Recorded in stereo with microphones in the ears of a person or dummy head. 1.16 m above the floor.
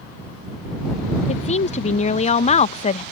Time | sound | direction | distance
1.3 | a woman speaking | 30° left (ahead or behind) | ?